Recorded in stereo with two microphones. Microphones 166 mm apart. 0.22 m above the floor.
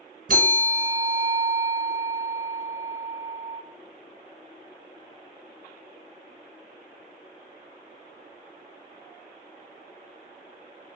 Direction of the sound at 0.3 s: 60° right (ahead or behind).